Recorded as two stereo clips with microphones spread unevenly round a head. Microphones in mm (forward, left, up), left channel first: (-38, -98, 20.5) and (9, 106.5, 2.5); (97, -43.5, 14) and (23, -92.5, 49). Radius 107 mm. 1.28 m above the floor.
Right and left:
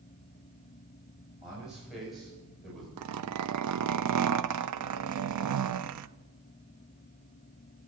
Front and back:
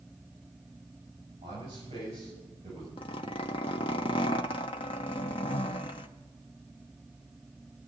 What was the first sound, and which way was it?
A man speaking, 165° left.